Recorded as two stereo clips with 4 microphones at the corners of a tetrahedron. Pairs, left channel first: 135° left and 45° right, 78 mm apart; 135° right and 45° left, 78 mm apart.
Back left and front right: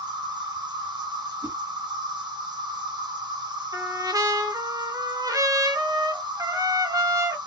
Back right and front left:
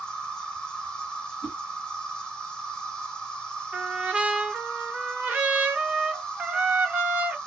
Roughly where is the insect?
Ahead right.